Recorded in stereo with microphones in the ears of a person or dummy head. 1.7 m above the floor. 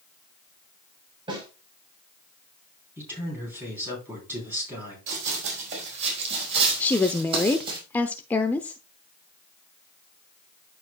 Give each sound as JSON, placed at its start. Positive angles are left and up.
{"t": 1.3, "sound": "a snare drum", "side_deg": -25, "distance_m": 4.5}
{"t": 3.0, "sound": "a man speaking", "side_deg": -10, "distance_m": 3.5}
{"t": 5.1, "sound": "running footsteps", "side_deg": -45, "distance_m": 5.0}
{"t": 6.8, "sound": "a woman speaking", "side_deg": 10, "distance_m": 0.6}